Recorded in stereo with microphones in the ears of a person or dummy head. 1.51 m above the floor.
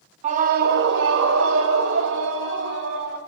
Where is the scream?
25° right (ahead or behind), 0.8 m; by 3.2 s 75° right (ahead or behind), 2.5 m.